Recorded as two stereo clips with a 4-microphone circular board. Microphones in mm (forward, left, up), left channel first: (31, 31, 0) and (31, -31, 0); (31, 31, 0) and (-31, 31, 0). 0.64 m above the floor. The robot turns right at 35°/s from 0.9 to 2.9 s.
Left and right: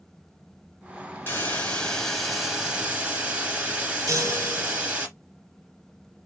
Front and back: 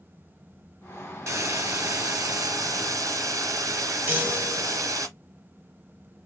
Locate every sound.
1.3 s a hiss: 145° left, 1.6 m; by 5.1 s 160° right, 1.6 m
4.1 s a chime: 120° right, 1.5 m